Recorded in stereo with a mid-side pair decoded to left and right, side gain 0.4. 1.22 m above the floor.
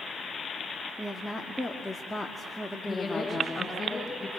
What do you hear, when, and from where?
1.0 s a woman speaking: 10° left, 2.5 m
2.8 s a woman speaking: 40° left, 6.5 m